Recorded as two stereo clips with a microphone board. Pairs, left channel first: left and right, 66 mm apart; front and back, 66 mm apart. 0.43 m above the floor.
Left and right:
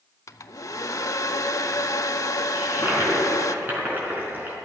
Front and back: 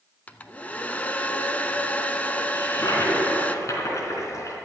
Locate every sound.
0.3 s a hair dryer: 65° left, 0.6 m
2.5 s a toilet flushing: 30° right, 3.5 m